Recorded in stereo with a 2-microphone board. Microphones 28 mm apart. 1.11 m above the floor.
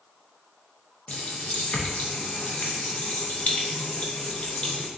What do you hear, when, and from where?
1.1 s a running tap: 60° left (ahead or behind), 0.5 m